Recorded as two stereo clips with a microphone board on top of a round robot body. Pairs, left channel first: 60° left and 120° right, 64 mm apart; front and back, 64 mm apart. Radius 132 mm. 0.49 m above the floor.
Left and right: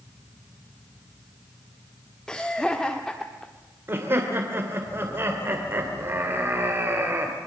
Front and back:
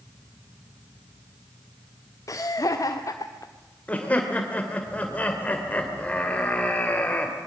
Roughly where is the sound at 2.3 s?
Ahead.